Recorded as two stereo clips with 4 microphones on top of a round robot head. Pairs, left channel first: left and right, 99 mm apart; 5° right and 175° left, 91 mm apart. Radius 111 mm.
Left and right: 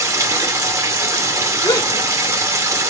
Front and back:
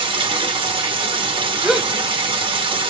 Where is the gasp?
100° left, 1.4 m.